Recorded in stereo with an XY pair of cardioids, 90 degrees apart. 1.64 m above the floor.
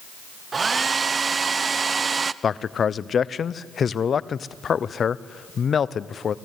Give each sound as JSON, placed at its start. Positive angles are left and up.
{"t": 0.5, "sound": "a hair dryer", "azimuth_deg": -40, "distance_m": 0.6}
{"t": 2.4, "sound": "a man speaking", "azimuth_deg": 50, "distance_m": 0.7}